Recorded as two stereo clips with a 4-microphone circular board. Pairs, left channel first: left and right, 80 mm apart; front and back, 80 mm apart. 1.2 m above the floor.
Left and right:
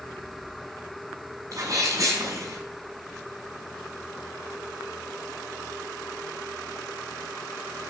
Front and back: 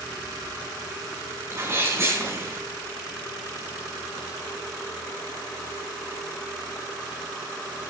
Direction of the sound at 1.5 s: 130° right.